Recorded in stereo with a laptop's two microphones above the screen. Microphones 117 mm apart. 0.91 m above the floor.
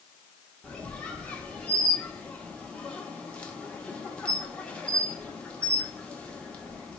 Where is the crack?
No crack in this recording.